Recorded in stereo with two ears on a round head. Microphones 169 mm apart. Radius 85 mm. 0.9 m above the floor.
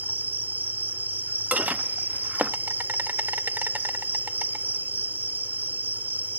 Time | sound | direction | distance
0.0 | an insect | 10° right (ahead or behind) | ?
1.5 | dishes clattering | 10° right (ahead or behind) | ?